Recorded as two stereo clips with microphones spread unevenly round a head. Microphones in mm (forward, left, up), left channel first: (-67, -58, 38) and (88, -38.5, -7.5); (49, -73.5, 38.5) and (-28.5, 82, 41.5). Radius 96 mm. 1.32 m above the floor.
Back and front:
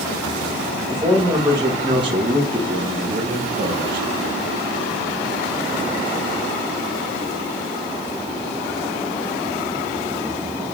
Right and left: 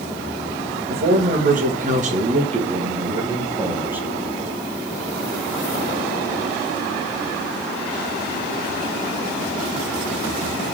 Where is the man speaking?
80° left, 2.5 m; by 4.1 s 35° left, 1.9 m.